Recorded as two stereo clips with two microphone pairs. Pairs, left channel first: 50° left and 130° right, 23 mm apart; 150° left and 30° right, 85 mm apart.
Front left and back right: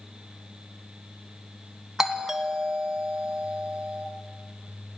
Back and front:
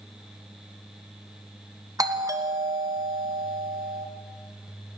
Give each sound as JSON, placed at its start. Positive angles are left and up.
{"t": 2.0, "sound": "a doorbell", "azimuth_deg": -50, "distance_m": 2.0}